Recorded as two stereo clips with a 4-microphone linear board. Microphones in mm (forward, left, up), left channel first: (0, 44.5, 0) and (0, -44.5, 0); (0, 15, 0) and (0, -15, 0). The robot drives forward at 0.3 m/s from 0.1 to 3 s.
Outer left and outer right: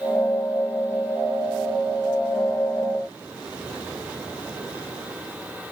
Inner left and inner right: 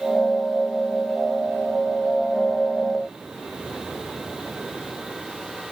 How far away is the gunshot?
I don't hear a gunshot.